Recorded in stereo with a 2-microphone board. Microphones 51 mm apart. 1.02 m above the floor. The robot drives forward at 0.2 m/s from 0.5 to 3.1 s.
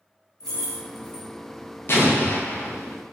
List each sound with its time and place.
0.4 s keys jangling: 10° left (ahead or behind), 1.4 m
1.9 s an explosion: 50° left (ahead or behind), 0.5 m; by 3.0 s 40° left (ahead or behind), 0.6 m